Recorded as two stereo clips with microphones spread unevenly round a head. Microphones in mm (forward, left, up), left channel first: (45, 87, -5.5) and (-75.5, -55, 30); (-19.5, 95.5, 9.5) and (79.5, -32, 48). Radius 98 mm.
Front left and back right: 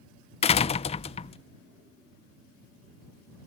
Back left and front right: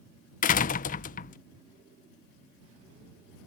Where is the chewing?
I don't hear chewing.